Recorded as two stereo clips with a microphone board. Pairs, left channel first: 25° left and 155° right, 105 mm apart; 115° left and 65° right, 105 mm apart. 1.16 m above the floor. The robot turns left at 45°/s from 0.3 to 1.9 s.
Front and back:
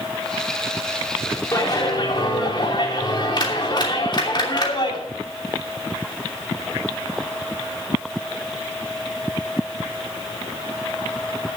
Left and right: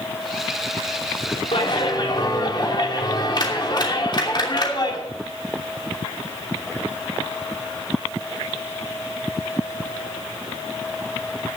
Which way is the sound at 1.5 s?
85° left.